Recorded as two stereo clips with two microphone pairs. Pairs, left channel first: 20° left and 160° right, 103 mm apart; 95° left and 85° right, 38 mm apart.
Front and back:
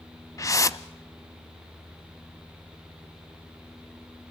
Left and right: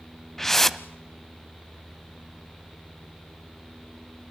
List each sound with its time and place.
0.4 s a whoosh: 15° left, 0.5 m